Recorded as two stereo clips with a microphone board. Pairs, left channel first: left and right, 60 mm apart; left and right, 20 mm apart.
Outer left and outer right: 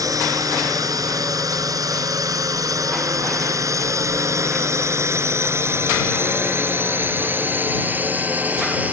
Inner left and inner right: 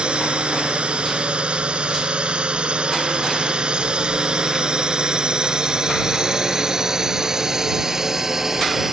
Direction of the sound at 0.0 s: 65° right (ahead or behind).